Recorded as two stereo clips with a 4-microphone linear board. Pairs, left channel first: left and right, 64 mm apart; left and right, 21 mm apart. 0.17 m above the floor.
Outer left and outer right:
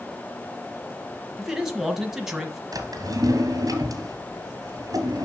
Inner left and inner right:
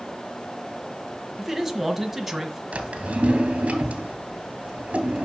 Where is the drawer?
70° right (ahead or behind), 1.7 m.